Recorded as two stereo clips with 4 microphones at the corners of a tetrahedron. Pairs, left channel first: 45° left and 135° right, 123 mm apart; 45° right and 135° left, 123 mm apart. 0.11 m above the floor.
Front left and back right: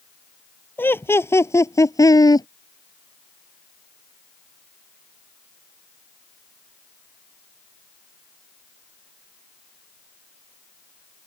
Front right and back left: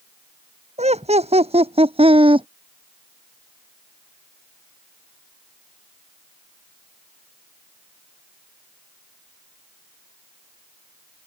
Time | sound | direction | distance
0.8 | laughter | 115° left | ?